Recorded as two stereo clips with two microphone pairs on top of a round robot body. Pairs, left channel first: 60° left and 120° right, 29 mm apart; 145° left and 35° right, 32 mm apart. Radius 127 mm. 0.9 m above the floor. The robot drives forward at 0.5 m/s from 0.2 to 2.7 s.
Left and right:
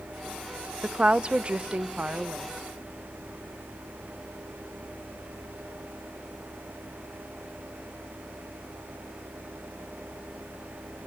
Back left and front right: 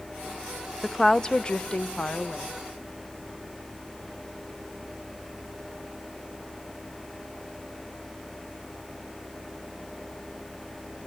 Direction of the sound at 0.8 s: 140° right.